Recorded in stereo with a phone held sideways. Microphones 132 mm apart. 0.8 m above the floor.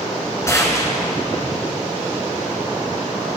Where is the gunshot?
25° left (ahead or behind), 1.8 m.